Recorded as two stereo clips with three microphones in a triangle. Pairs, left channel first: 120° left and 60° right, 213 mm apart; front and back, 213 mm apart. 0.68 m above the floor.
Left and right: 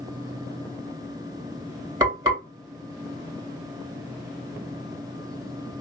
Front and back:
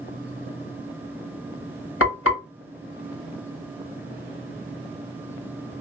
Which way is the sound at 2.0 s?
15° left.